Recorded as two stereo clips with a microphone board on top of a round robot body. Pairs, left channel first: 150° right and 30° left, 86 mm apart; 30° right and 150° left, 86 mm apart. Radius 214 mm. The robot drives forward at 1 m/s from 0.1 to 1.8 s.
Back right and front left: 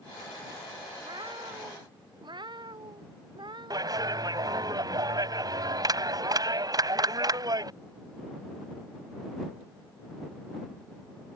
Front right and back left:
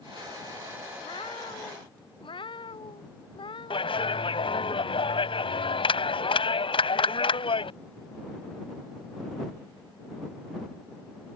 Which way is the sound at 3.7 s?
15° right.